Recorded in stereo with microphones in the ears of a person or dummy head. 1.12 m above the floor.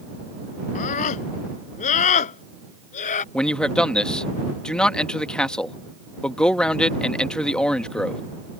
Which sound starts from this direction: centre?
A man speaking, at 3.3 s.